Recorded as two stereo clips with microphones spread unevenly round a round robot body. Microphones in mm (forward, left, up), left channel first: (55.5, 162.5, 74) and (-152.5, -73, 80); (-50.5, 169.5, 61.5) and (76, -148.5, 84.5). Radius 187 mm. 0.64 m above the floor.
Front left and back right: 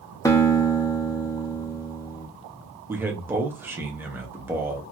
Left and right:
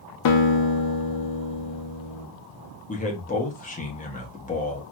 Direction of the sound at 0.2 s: 125° left.